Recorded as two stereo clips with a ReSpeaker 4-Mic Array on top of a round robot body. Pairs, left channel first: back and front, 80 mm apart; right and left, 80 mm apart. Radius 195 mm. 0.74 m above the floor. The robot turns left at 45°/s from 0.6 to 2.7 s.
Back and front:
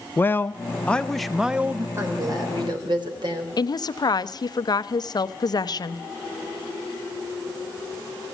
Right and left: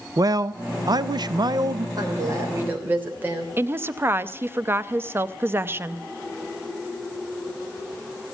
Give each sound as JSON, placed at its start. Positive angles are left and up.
{"t": 0.2, "sound": "a man speaking", "azimuth_deg": 120, "distance_m": 0.8}
{"t": 2.0, "sound": "a woman speaking", "azimuth_deg": 55, "distance_m": 3.5}
{"t": 3.6, "sound": "a woman speaking", "azimuth_deg": 150, "distance_m": 0.8}